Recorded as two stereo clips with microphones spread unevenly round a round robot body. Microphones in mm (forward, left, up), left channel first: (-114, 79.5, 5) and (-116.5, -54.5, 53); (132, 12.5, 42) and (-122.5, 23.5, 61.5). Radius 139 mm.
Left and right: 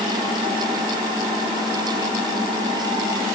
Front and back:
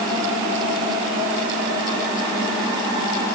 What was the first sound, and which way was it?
Only background noise.